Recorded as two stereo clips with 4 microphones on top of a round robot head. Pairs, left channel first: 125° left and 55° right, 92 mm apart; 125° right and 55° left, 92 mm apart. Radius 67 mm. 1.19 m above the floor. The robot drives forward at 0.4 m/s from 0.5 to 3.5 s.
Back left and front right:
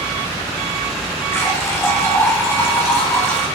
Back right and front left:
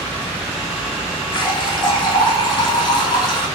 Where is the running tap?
170° right, 2.5 m.